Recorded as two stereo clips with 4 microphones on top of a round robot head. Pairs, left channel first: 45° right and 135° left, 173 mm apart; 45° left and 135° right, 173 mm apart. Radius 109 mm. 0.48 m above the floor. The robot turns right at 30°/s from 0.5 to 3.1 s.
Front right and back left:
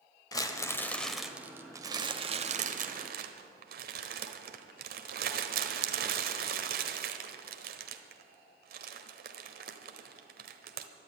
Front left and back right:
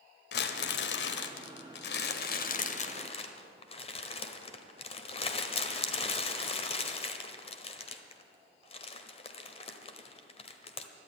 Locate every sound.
0.3 s crumpling: 25° left, 1.0 m; by 10.9 s 100° left, 1.0 m